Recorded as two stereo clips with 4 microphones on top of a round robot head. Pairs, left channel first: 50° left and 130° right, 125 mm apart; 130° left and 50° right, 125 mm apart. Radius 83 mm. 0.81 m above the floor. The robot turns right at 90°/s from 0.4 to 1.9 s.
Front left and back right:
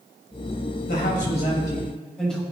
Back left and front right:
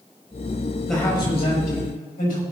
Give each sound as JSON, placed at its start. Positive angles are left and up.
{"t": 0.9, "sound": "a man speaking", "azimuth_deg": 40, "distance_m": 6.0}